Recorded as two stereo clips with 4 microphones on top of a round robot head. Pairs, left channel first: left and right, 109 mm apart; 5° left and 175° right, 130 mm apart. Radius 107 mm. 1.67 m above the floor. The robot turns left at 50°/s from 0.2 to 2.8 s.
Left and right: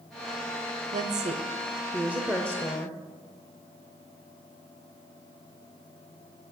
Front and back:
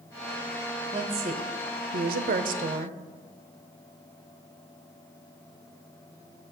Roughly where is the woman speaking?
Right.